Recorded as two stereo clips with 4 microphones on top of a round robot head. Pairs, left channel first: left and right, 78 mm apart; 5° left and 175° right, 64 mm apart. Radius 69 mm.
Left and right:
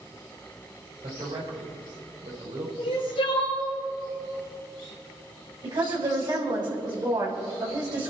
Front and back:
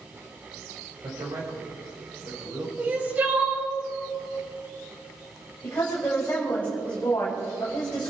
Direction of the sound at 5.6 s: 65° right.